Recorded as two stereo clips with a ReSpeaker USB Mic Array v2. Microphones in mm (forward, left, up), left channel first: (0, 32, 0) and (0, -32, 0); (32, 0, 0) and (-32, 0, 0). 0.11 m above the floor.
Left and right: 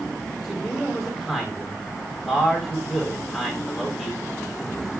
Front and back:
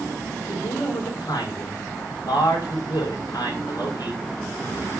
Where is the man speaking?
Straight ahead, 9 m.